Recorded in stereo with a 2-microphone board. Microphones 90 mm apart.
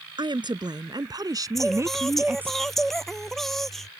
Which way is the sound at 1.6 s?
Centre (ahead or behind).